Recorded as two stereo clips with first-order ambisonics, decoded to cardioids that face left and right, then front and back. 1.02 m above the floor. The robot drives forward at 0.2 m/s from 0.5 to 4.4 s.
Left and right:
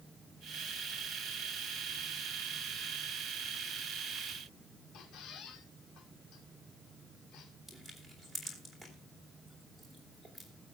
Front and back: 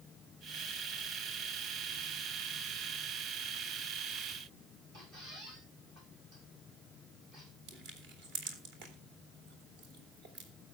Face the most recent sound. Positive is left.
turn(degrees=175)